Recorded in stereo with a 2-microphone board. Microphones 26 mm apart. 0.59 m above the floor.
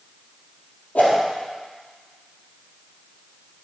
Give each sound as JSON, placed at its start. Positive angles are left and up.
{"t": 0.9, "sound": "a whoosh", "side_deg": 65, "distance_m": 3.0}